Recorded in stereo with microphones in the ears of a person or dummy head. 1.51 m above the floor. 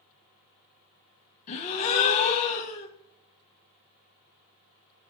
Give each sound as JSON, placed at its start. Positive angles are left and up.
{"t": 1.5, "sound": "a gasp", "side_deg": 40, "distance_m": 0.9}